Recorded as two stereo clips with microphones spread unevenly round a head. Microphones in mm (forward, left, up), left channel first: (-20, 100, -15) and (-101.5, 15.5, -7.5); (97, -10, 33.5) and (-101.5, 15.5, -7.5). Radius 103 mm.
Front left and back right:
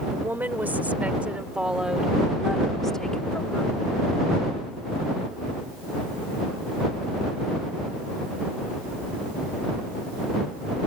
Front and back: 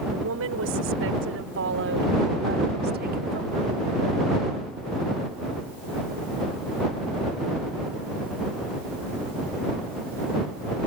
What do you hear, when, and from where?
0.1 s a woman speaking: 155° left; by 3.7 s 120° left